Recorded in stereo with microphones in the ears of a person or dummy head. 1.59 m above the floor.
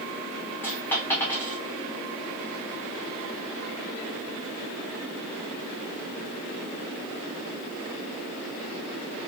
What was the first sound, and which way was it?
A dropped coin, 10° left (ahead or behind).